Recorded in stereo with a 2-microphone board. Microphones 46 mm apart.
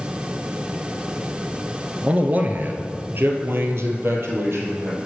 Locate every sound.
2.0 s a man speaking: 30° right (ahead or behind), 1.3 m; by 5.0 s 60° right (ahead or behind), 3 m